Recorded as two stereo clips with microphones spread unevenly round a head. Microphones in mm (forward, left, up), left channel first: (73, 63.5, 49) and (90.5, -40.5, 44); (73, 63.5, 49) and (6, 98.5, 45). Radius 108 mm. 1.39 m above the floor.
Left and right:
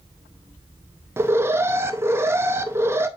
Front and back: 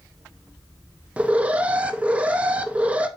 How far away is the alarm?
About 0.6 m.